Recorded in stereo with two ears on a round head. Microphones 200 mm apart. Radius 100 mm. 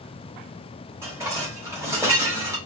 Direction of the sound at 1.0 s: 10° right (ahead or behind).